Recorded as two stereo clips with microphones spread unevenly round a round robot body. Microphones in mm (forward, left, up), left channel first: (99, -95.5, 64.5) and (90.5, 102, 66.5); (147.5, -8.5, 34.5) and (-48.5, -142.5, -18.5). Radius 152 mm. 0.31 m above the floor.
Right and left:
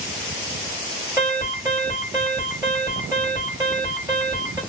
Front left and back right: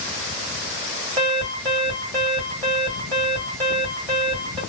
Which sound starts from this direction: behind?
An alarm, at 1.2 s.